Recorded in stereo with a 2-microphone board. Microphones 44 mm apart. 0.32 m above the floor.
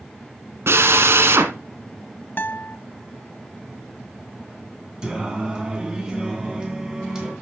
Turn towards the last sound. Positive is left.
turn(degrees=-20)  # may be behind; listen again after turning